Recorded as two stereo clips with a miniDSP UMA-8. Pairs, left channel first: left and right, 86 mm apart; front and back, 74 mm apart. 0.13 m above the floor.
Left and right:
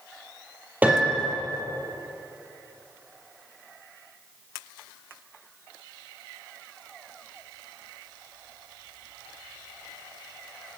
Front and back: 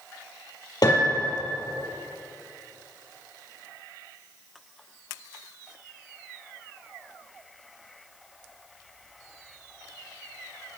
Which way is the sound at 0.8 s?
20° right.